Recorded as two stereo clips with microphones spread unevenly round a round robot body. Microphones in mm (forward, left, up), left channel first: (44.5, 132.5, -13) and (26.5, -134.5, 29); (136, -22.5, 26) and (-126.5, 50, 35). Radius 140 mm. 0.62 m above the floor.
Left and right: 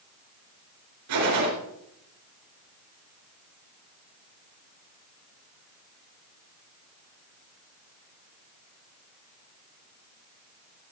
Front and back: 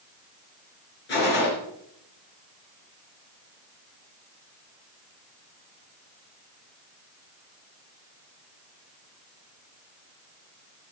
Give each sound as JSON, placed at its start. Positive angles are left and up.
{"t": 1.1, "sound": "a gunshot", "azimuth_deg": -70, "distance_m": 4.5}